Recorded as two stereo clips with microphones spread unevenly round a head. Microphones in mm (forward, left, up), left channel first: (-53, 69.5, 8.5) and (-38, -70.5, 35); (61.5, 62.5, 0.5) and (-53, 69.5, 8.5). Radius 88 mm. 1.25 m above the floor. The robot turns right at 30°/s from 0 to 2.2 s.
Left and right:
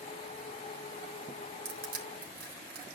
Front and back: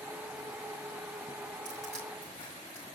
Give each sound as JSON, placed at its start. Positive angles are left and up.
{"t": 1.6, "sound": "crushing", "azimuth_deg": -100, "distance_m": 4.0}